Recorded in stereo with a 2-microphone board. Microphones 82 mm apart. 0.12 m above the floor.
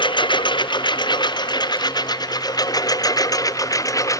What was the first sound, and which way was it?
A lawn mower, 65° left (ahead or behind).